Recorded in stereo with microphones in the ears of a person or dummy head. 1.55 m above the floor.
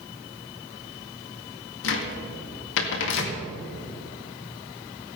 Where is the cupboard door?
70° left (ahead or behind), 1.9 m.